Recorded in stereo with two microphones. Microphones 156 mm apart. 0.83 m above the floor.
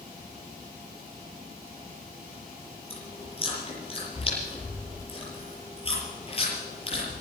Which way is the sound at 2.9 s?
35° left (ahead or behind).